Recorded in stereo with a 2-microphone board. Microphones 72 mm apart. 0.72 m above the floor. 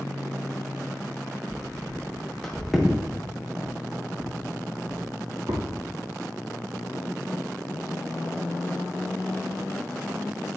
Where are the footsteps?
25° left (ahead or behind), 3 m; by 5.6 s 70° right (ahead or behind), 3 m.